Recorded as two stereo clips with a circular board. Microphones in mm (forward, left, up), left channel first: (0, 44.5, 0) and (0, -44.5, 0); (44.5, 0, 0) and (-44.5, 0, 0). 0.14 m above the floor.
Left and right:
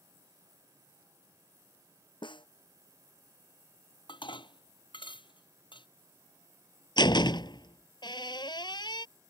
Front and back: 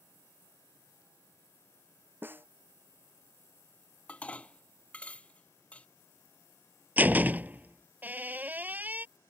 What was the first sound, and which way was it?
A snare drum, 115° left.